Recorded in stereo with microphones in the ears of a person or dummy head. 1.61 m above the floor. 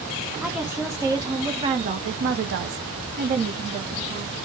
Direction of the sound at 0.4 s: 5° right (ahead or behind).